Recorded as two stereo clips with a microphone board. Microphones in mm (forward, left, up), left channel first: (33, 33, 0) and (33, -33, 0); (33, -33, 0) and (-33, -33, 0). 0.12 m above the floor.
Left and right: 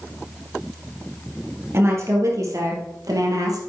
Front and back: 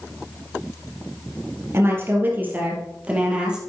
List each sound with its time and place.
1.7 s a woman speaking: 135° right, 3 m; by 3.6 s 105° right, 3.5 m